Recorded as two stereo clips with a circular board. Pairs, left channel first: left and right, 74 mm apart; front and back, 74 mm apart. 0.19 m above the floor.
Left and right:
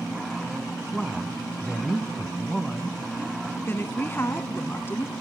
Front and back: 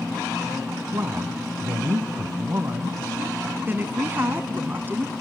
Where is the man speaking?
175° right, 1.3 m.